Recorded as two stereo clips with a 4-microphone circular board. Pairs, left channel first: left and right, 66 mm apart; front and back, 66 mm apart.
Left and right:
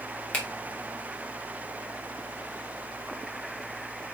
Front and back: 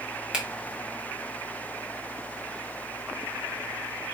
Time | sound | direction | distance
0.3 | a finger snap | 125° left | 1.3 m